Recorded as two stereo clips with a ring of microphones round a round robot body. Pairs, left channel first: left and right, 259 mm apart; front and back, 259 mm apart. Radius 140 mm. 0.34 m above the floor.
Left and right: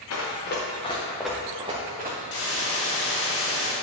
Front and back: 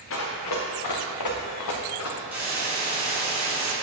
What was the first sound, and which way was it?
Running footsteps, 50° left.